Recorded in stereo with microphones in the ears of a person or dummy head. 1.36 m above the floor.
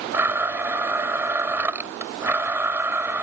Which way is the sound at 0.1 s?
20° right (ahead or behind).